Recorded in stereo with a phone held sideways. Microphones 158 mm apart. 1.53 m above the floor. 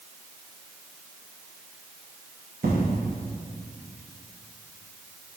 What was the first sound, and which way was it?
An explosion, 80° right.